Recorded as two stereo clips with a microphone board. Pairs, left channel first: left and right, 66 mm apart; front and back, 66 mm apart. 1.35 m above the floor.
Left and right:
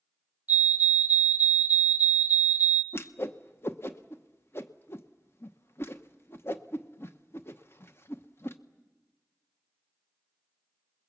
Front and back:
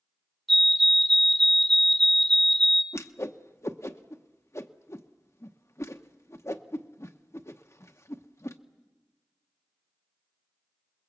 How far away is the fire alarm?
About 0.9 m.